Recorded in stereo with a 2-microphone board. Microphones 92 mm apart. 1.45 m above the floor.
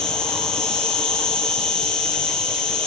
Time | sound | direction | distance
0.0 | an insect | 10° left (ahead or behind) | 2 m